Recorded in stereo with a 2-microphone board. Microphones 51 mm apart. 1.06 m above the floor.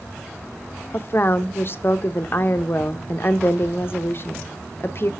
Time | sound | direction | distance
0.9 | a woman speaking | 45° left (ahead or behind) | 0.6 m